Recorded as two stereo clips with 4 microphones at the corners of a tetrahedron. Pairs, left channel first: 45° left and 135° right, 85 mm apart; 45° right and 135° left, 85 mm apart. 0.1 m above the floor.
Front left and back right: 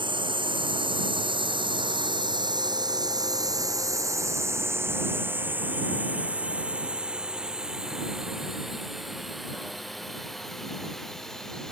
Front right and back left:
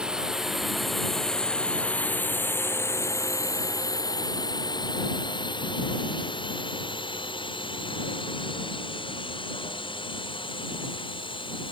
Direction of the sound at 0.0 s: 145° right.